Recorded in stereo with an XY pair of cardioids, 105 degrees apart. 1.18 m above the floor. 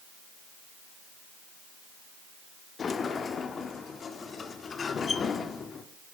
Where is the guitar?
No guitar in this recording.